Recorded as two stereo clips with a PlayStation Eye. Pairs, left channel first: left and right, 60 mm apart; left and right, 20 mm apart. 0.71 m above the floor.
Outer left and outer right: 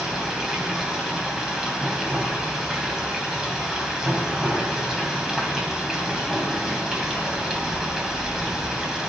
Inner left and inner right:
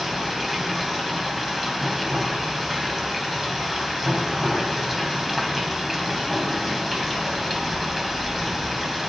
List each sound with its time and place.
0.0 s running water: 10° right (ahead or behind), 3 m